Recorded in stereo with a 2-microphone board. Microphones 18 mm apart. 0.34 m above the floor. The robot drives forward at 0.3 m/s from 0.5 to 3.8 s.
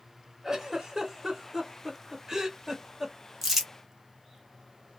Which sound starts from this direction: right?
A giggle, at 0.4 s.